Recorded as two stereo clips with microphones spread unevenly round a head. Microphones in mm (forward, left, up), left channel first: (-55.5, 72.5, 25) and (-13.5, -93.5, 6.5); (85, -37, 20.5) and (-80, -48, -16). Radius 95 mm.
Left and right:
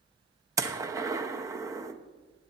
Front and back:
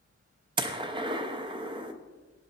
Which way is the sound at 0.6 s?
140° right.